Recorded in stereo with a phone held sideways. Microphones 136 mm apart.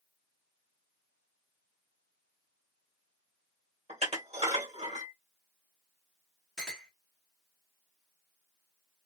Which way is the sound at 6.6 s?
5° left (ahead or behind).